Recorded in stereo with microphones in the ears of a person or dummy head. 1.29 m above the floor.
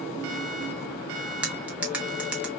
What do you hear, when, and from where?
1.4 s cutlery clinking: 5° right (ahead or behind), 1.1 m